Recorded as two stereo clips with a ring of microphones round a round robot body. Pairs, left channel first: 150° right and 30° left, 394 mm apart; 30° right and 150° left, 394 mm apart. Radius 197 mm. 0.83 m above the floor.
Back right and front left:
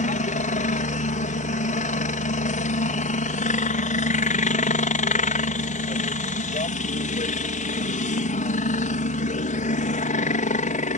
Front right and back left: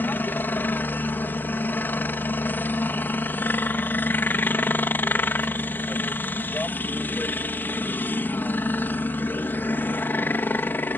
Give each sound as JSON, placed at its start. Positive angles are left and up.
{"t": 0.0, "sound": "a helicopter", "azimuth_deg": -110}